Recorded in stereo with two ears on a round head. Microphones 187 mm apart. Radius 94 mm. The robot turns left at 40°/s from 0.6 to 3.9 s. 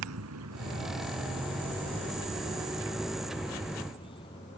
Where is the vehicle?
80° right; by 4.6 s 25° left (ahead or behind).